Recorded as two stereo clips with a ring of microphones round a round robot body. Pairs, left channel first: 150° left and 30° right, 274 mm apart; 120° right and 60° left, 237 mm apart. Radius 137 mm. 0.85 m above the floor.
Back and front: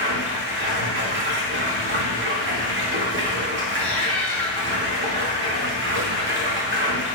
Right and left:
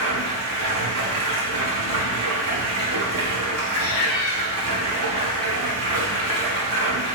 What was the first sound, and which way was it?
Running water, 20° left.